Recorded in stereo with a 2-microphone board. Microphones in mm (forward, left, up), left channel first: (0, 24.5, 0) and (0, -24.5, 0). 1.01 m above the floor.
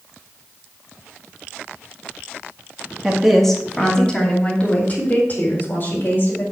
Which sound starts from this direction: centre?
A woman speaking, at 3.0 s.